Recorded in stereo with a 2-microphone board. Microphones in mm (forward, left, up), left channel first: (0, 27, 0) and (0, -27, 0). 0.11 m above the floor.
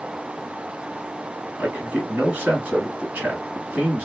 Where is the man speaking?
20° right (ahead or behind), 1.7 m.